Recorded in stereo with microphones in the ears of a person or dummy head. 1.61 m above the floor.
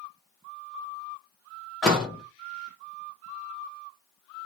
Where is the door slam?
Centre (ahead or behind), 1.0 m.